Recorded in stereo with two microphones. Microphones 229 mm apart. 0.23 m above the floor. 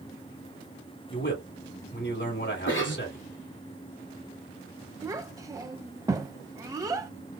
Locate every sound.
1.1 s a man speaking: 55° left (ahead or behind), 2.5 m
2.7 s a cough: 60° left (ahead or behind), 2.5 m
5.0 s a child speaking: 15° right (ahead or behind), 0.5 m